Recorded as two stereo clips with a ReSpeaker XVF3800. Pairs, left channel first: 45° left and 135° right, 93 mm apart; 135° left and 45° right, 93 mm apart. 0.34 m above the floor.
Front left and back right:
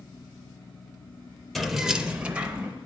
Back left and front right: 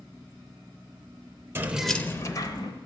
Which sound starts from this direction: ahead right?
Keys jangling, at 1.6 s.